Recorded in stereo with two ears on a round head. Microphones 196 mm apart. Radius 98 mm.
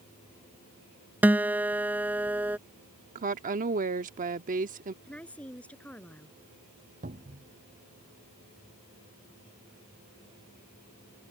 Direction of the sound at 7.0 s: 40° right (ahead or behind).